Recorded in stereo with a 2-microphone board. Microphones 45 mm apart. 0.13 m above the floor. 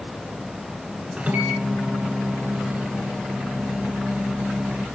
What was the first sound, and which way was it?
A microwave, 30° right (ahead or behind).